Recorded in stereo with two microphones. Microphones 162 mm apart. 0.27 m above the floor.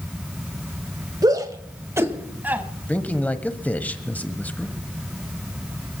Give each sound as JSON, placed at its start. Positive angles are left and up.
{"t": 1.2, "sound": "a shout", "side_deg": -25, "distance_m": 1.3}
{"t": 2.9, "sound": "a man speaking", "side_deg": 10, "distance_m": 1.1}